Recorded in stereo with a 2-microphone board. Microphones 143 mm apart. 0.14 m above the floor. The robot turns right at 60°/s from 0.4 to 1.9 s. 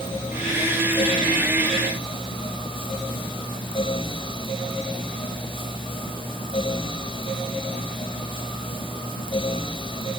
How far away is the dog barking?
No dog barking in this recording.